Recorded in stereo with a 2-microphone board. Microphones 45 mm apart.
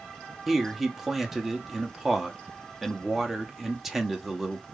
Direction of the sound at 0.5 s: 5° right (ahead or behind).